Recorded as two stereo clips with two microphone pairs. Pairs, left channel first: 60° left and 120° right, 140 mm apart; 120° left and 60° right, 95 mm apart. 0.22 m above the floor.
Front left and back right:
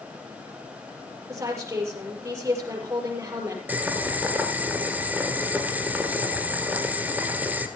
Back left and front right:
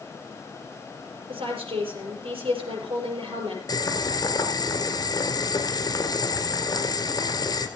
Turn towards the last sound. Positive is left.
turn(degrees=165)